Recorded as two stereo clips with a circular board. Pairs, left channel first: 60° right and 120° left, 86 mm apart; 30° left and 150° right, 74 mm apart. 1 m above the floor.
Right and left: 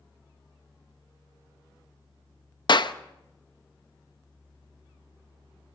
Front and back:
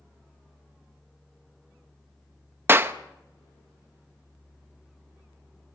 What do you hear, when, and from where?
2.7 s a clap: 90° right, 0.8 m